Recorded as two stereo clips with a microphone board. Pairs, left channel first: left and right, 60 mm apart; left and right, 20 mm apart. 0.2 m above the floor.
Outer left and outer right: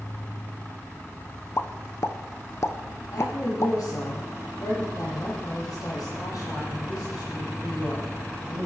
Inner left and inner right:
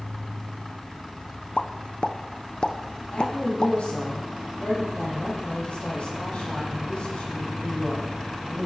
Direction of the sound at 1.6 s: 50° left (ahead or behind).